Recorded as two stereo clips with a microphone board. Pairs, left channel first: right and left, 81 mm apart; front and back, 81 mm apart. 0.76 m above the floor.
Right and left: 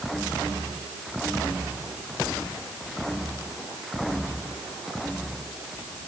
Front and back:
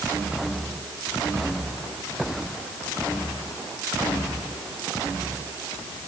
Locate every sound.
Only background noise.